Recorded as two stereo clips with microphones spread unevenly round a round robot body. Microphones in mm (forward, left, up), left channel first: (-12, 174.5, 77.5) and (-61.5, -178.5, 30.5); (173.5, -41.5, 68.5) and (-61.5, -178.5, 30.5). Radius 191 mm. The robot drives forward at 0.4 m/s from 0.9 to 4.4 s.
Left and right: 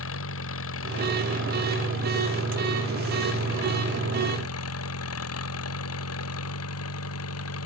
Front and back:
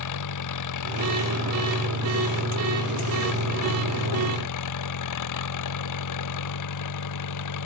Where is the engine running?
25° left; by 7.7 s 30° left.